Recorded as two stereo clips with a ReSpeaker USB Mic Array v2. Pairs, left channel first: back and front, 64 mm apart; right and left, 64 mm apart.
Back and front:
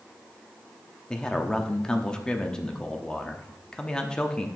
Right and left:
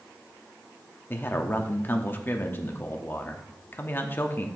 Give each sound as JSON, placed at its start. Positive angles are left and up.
{"t": 1.1, "sound": "a man speaking", "azimuth_deg": -110, "distance_m": 0.8}